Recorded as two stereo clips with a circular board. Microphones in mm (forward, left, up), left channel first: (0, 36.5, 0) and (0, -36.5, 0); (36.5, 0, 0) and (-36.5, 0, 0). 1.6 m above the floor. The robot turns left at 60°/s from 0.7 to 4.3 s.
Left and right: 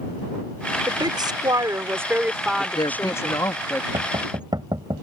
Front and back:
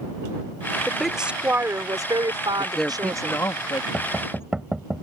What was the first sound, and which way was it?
A woman speaking, 80° right.